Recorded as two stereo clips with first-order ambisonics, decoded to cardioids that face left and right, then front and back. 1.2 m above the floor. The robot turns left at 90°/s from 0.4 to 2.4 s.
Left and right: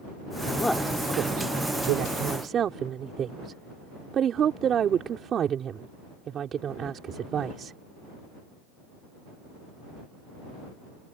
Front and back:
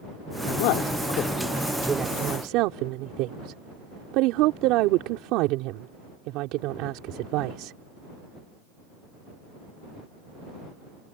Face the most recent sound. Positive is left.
turn(degrees=-150)